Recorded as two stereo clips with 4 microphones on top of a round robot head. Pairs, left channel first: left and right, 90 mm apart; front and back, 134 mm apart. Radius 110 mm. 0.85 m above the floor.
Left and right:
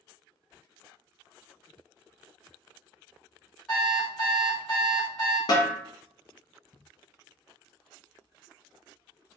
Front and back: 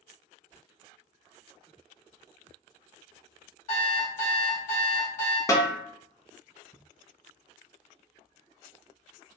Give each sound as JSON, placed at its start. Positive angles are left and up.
{"t": 3.7, "sound": "an alarm clock", "azimuth_deg": 10, "distance_m": 1.5}
{"t": 5.5, "sound": "a snare drum", "azimuth_deg": 60, "distance_m": 0.7}